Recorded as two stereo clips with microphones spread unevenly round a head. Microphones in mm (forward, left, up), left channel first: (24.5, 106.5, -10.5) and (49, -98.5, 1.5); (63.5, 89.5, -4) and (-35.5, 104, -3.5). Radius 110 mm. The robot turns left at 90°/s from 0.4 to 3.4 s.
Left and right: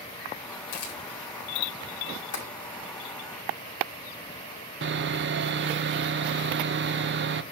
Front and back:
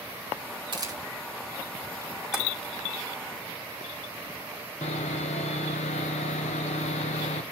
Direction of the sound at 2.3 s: 90° left.